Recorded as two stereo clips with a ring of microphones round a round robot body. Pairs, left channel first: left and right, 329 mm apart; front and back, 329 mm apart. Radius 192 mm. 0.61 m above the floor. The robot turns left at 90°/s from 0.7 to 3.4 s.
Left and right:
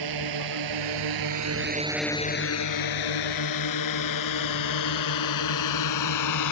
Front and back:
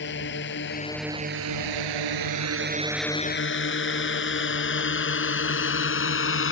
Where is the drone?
60° right; by 6.5 s 50° left.